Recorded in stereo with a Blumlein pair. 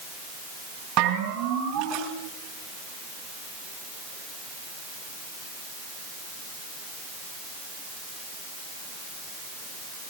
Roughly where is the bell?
Ahead right.